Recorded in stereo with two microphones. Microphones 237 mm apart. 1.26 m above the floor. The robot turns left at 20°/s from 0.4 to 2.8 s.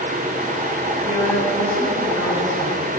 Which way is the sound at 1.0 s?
155° left.